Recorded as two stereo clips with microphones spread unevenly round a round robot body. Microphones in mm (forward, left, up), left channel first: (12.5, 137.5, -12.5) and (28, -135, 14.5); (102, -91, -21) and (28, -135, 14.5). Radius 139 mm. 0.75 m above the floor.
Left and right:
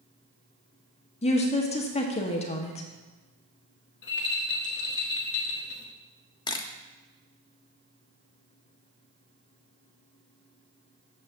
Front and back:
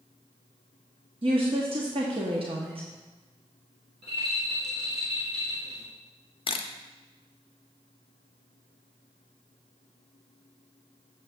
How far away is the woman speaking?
About 0.7 m.